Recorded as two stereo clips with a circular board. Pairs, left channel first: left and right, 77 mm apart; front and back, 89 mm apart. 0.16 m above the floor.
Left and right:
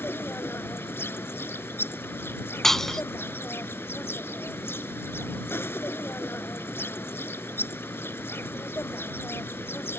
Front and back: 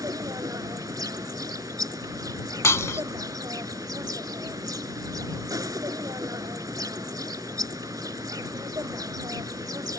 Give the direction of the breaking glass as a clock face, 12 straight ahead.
12 o'clock.